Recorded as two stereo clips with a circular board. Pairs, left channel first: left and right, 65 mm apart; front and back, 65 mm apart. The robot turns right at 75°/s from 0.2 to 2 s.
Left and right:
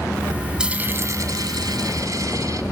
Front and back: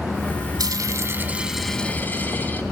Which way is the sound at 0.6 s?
170° right.